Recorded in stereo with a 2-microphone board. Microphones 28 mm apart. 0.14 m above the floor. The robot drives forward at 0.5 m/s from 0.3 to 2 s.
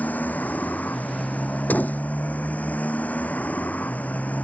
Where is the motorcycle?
80° left; by 4.5 s 65° left (ahead or behind).